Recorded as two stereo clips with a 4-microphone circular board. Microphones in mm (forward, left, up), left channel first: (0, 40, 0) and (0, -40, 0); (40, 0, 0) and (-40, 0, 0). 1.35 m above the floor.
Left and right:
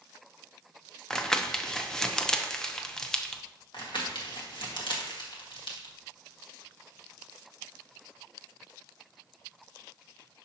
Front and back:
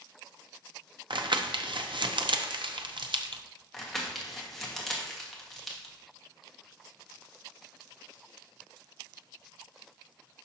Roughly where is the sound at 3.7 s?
Left.